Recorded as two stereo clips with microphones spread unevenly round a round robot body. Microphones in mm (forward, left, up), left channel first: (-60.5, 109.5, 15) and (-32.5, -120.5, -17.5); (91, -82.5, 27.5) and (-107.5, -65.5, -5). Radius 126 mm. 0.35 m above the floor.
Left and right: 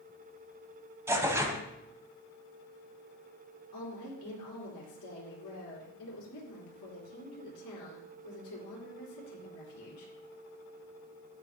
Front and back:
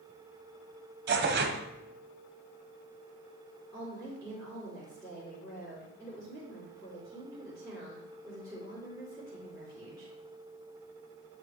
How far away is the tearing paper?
About 0.9 m.